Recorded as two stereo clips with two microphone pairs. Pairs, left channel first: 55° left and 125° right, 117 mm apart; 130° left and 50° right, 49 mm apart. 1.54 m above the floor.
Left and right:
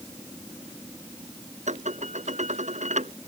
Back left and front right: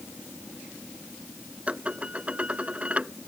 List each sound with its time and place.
1.7 s dishes clattering: 115° right